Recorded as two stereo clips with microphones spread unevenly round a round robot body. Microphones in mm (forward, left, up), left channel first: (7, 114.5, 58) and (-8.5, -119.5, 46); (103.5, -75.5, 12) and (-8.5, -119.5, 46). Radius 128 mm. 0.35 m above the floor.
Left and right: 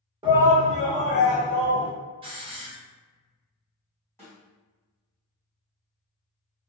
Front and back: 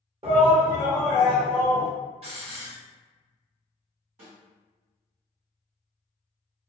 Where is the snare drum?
165° left, 1.7 m.